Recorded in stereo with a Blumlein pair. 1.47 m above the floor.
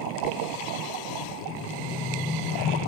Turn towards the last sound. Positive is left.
turn(degrees=5)